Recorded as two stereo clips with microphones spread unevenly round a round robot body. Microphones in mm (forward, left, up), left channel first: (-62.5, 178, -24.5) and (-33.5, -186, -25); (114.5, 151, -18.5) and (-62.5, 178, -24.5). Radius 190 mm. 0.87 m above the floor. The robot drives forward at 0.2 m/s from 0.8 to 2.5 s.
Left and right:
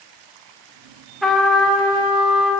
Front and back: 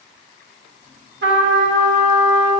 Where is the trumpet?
175° right, 0.8 m.